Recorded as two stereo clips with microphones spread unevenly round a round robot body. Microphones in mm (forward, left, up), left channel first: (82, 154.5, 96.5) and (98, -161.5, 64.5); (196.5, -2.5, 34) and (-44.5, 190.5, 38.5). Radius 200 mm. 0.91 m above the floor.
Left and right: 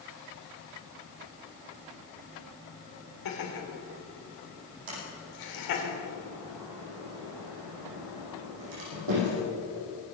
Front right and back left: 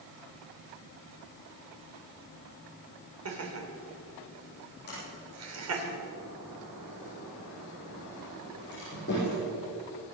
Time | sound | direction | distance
3.2 | laughter | 110° left | 3.5 m
4.9 | a sliding door | 105° right | 6.5 m